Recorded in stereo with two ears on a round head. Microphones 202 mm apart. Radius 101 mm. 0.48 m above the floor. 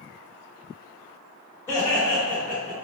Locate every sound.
1.7 s laughter: 15° left (ahead or behind), 1.1 m; by 2.7 s 20° right (ahead or behind), 1.0 m